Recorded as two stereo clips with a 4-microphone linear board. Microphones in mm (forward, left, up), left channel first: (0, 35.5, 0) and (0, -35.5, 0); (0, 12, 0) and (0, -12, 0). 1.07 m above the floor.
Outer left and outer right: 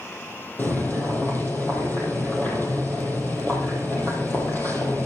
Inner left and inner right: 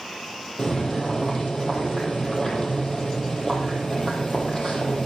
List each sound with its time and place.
0.6 s boiling: 30° left (ahead or behind), 6 m